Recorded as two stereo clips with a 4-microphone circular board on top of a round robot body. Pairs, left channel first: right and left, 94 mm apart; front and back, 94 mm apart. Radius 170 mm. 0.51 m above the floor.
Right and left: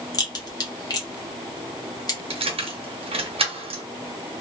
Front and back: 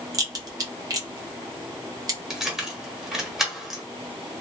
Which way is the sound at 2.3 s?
95° left.